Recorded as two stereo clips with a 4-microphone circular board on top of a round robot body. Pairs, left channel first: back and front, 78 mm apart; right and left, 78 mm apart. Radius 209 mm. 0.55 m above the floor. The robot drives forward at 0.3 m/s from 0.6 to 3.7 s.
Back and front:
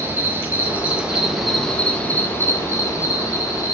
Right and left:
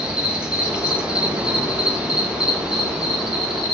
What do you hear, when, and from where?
0.0 s an insect: 25° left, 0.8 m; by 3.7 s 170° left, 1.0 m